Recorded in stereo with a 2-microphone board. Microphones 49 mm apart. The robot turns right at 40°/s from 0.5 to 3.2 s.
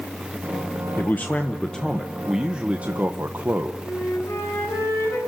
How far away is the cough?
No cough in this recording.